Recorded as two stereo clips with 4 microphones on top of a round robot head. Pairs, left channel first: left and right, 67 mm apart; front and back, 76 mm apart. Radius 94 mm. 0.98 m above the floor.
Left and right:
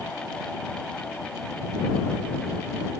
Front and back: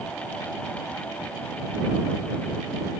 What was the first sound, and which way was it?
Only background noise.